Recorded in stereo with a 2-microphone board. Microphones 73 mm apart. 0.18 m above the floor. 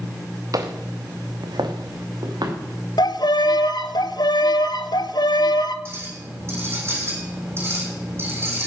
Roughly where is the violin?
Left.